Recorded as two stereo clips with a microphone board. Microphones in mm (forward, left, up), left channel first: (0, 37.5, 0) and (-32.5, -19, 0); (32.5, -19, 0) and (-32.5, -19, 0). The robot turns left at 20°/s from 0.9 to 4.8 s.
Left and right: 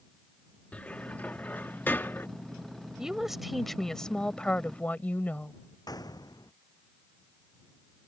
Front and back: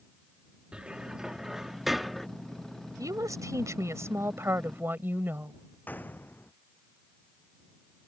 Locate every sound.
0.7 s a cupboard door: 115° left; by 2.3 s 85° left
3.0 s a woman speaking: 160° left; by 5.5 s 125° left
5.9 s a gunshot: 60° left